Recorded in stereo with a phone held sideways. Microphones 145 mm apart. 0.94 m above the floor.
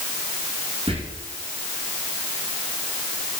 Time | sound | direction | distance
0.9 | whispering | 40° right (ahead or behind) | 0.9 m